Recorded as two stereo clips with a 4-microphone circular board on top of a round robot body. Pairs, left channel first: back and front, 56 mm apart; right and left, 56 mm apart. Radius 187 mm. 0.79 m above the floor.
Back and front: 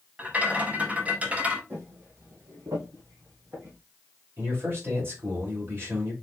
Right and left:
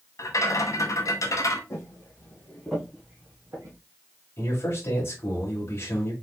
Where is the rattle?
65° right, 1.3 m.